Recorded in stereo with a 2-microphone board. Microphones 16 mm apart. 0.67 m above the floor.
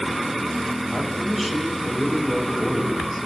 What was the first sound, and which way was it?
A man speaking, 5° right (ahead or behind).